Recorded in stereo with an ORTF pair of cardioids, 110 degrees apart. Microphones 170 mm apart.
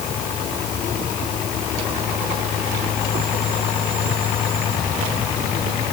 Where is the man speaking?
I don't hear a man speaking.